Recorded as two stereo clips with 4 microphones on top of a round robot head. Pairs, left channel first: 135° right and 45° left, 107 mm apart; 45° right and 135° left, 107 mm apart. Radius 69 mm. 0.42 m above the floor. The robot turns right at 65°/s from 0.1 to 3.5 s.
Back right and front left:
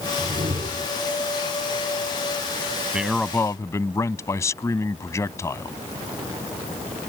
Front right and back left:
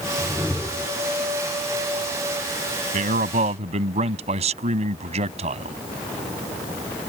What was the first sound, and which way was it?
A whoosh, 15° left.